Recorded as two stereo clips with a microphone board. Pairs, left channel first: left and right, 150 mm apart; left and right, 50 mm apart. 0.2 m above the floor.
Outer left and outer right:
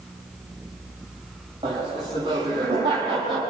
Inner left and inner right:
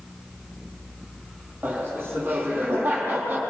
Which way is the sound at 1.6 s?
35° right (ahead or behind).